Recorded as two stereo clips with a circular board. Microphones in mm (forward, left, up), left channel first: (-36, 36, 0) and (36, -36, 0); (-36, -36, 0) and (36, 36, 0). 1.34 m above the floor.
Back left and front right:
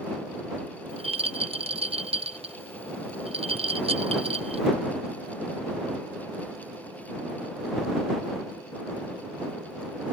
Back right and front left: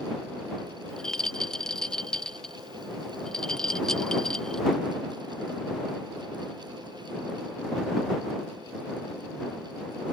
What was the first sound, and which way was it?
A rattle, 50° right.